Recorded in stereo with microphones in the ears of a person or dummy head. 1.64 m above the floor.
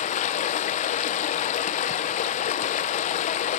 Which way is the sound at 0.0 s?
35° left (ahead or behind).